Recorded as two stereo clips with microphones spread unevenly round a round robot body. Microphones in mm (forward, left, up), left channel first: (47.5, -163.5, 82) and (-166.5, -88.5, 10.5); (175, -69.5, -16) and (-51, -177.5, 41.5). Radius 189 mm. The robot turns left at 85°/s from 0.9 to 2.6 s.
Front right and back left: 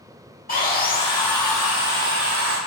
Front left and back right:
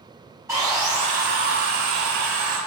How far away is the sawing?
About 5.5 m.